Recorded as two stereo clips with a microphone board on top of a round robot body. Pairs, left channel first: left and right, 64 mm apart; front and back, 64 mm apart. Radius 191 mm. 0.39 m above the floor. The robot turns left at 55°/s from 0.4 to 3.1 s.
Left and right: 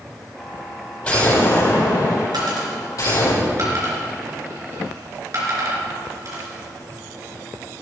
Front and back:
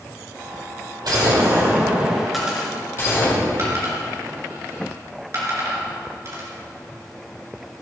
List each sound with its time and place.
1.0 s an explosion: 165° left, 5 m; by 3.3 s 50° left, 5 m
2.3 s a dropped coin: 90° right, 3 m; by 6.5 s 135° right, 3 m